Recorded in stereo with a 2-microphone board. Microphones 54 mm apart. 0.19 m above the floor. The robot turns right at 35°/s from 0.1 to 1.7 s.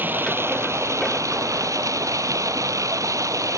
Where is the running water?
140° right; by 3.6 s 85° right.